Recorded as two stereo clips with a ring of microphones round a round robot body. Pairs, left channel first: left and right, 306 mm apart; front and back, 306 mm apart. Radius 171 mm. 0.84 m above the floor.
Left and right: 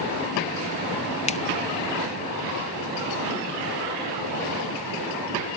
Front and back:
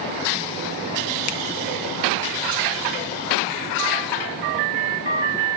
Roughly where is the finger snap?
Ahead left.